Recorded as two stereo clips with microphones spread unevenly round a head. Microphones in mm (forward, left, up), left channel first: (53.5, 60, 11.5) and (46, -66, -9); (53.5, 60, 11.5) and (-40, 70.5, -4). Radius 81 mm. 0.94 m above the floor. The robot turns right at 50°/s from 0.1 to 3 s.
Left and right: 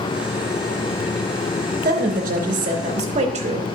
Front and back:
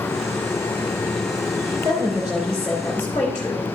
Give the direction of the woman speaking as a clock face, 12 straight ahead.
4 o'clock.